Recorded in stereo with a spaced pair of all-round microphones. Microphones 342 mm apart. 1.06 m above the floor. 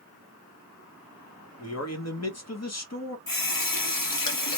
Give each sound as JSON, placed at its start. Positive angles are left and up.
{"t": 1.6, "sound": "a man speaking", "side_deg": 45, "distance_m": 1.0}
{"t": 3.3, "sound": "a running tap", "side_deg": 70, "distance_m": 0.9}